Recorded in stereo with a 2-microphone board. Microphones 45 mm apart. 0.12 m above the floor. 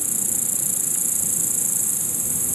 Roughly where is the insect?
Centre.